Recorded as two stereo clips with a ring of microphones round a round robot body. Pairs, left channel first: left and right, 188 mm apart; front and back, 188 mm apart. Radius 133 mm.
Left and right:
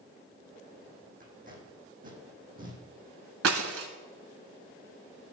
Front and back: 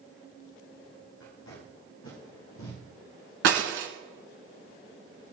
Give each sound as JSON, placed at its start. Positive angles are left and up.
{"t": 1.2, "sound": "tape being pulled", "azimuth_deg": -45, "distance_m": 7.0}
{"t": 3.4, "sound": "breaking glass", "azimuth_deg": -130, "distance_m": 1.7}